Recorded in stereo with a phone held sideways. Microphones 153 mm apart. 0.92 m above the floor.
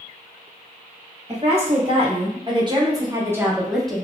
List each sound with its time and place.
1.3 s a woman speaking: 40° right (ahead or behind), 2.0 m; by 4.0 s 10° left (ahead or behind), 0.8 m